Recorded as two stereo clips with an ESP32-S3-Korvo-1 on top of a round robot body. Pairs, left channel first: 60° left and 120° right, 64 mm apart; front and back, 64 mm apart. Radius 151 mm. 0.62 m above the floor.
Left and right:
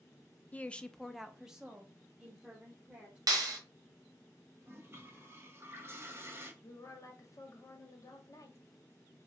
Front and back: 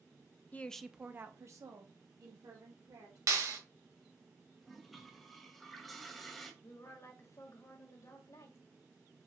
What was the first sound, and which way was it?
A woman speaking, 25° left.